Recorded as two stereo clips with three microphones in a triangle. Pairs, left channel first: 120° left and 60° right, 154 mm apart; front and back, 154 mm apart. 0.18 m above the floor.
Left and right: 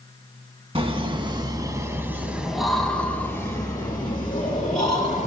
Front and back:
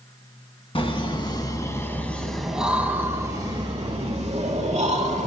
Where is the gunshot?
I don't hear a gunshot.